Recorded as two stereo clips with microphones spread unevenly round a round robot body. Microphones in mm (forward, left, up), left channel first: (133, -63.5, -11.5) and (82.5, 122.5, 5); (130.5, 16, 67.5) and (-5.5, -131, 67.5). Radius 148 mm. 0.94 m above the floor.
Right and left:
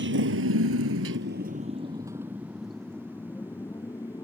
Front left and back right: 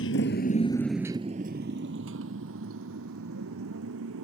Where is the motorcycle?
85° left; by 4.2 s 155° right.